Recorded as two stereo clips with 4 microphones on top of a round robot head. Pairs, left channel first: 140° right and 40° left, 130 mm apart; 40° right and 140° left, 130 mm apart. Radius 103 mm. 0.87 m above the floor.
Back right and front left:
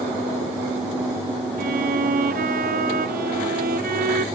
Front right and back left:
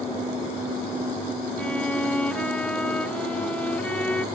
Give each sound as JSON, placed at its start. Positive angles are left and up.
{"t": 1.6, "sound": "a violin", "azimuth_deg": 40}